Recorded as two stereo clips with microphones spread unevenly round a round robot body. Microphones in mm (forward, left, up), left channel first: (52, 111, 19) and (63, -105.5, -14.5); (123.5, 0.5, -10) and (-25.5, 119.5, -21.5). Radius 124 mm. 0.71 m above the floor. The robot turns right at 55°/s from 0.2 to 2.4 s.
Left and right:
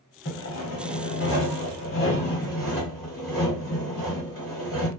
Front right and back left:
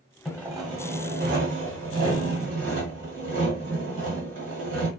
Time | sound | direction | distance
0.2 | sawing | 50° left | 1.2 m